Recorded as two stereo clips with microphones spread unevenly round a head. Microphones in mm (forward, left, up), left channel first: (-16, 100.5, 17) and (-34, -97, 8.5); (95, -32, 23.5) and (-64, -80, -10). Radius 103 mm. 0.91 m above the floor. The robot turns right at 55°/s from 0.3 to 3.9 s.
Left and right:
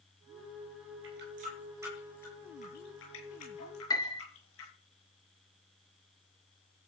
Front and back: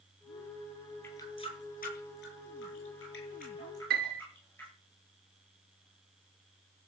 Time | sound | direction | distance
1.0 | a running tap | 60° right | 8.5 m
3.9 | a piano | 155° left | 2 m